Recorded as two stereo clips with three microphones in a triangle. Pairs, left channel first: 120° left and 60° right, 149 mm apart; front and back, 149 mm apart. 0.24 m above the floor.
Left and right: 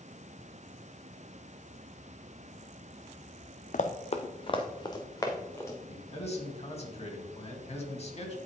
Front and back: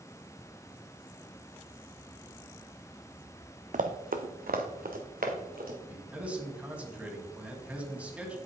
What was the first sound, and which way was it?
Running footsteps, 150° left.